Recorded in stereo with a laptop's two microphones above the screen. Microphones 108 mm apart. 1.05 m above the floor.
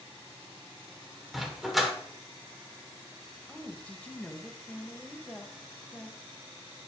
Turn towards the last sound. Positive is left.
turn(degrees=15)  # may be behind; listen again after turning